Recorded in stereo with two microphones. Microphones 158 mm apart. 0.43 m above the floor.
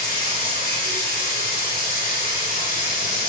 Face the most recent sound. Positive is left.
turn(degrees=70)  # may be behind; listen again after turning